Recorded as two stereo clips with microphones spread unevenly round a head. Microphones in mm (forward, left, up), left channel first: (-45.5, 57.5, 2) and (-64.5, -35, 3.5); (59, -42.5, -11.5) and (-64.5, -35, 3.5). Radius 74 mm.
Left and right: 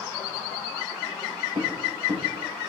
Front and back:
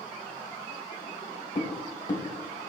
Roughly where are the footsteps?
Ahead right.